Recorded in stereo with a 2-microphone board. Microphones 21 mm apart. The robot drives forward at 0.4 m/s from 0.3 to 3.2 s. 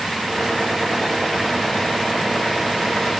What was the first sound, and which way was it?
Only background noise.